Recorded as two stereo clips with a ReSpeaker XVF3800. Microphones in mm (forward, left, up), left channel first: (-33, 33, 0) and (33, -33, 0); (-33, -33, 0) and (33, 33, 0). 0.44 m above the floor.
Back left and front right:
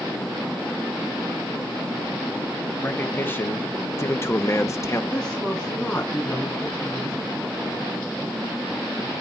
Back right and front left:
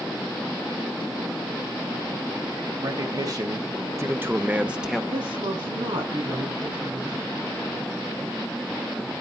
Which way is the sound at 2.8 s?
70° left.